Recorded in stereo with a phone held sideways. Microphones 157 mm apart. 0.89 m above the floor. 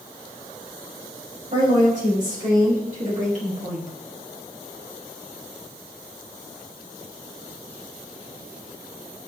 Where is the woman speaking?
55° right (ahead or behind), 2.5 m; by 3.9 s 50° right (ahead or behind), 1.4 m.